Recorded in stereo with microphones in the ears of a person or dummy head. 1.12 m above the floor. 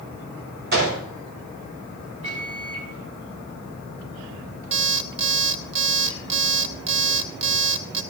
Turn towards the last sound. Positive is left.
turn(degrees=-35)  # may be behind; listen again after turning